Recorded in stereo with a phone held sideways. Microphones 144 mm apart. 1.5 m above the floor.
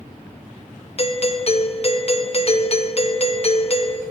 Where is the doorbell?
45° left (ahead or behind), 0.6 m.